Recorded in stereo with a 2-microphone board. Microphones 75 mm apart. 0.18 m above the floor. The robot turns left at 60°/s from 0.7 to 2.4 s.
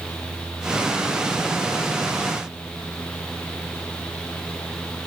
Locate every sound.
Only background noise.